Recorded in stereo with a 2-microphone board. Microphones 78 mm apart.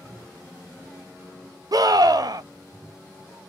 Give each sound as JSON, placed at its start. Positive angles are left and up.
{"t": 1.7, "sound": "a scream", "side_deg": -55, "distance_m": 0.6}